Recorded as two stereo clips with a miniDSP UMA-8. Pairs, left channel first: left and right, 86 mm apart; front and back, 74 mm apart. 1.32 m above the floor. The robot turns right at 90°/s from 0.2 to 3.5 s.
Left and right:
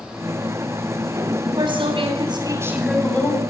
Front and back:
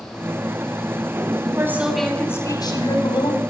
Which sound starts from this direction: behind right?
A woman speaking, at 1.4 s.